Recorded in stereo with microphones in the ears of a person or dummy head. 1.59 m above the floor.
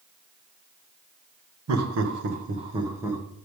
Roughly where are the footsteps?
I don't hear footsteps.